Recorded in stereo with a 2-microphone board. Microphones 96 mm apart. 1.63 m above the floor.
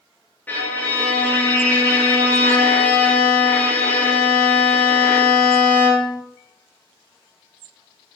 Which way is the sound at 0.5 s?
20° left (ahead or behind).